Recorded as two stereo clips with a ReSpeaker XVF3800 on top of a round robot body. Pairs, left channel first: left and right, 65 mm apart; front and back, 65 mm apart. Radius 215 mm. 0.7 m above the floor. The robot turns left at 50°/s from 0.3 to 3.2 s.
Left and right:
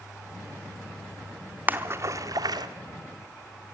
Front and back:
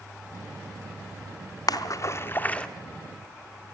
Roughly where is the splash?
Ahead right.